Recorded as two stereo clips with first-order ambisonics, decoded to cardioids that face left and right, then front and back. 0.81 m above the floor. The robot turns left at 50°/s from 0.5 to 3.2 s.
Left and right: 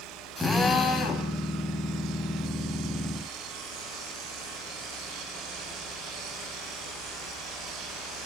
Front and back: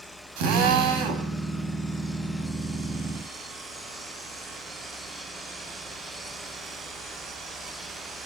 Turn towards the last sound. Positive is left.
turn(degrees=50)